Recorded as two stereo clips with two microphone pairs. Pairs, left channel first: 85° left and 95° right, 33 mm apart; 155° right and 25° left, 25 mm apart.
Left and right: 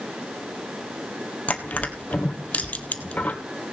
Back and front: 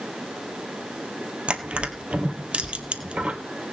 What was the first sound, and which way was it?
Crushing, 50° left.